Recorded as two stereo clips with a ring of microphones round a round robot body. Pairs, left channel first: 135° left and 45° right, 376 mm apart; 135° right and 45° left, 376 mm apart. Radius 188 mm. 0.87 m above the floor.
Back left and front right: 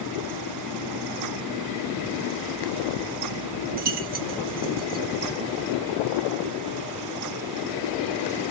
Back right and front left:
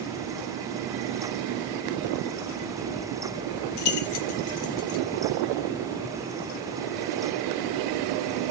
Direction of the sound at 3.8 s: 115° right.